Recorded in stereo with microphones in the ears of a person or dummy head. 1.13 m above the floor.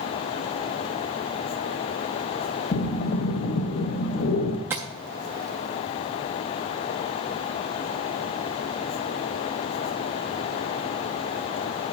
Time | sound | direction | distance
2.7 | breathing | 50° left (ahead or behind) | 0.7 m
4.7 | tapping | 10° right (ahead or behind) | 0.5 m